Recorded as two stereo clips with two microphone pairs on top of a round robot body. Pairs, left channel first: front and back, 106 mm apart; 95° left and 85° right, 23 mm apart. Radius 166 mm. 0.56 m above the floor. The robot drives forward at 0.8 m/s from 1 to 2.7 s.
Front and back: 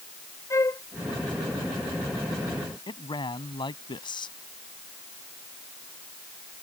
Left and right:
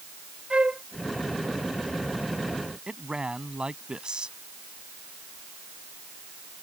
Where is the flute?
60° right.